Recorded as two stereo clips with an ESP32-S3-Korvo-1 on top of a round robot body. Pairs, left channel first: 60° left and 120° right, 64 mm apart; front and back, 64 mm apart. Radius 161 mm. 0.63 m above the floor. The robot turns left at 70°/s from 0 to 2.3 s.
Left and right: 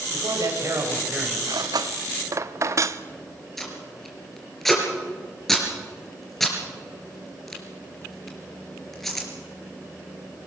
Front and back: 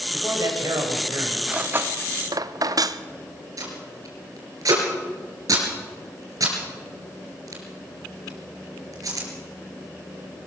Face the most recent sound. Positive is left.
turn(degrees=145)